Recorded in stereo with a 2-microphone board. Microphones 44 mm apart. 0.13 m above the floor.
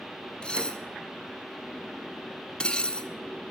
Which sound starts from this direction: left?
Dishes clattering, at 0.4 s.